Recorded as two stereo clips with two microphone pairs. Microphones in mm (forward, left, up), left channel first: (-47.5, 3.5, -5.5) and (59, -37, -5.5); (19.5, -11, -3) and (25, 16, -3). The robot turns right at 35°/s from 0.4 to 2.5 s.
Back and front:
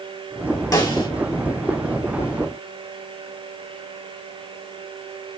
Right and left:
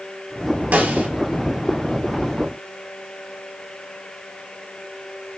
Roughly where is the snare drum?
Left.